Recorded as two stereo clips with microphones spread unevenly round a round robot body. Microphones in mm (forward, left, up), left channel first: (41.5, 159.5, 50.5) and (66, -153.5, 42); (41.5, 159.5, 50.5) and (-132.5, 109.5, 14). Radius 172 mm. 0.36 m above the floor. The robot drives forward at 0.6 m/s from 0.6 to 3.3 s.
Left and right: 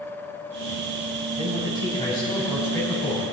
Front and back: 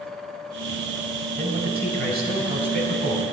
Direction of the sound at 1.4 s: 170° left.